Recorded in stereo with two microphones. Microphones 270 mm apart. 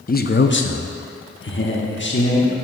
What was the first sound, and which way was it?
A man speaking, 30° left (ahead or behind).